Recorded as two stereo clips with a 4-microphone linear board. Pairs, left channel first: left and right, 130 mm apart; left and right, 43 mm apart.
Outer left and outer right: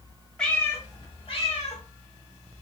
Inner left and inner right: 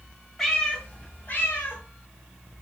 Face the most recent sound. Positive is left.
turn(degrees=60)  # may be behind; listen again after turning